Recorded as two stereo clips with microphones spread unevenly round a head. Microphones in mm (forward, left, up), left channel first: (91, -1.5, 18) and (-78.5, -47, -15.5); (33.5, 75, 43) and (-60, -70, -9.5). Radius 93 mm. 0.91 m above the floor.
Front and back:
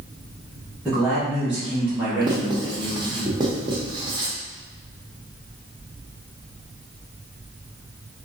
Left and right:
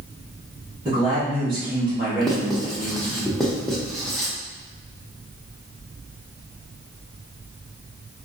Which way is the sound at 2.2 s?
165° left.